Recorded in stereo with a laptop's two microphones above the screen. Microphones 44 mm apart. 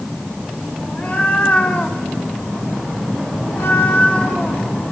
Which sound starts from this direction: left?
A cat meowing, at 0.8 s.